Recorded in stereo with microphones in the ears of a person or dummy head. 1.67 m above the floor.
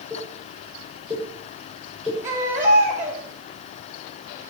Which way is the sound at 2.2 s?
10° right (ahead or behind).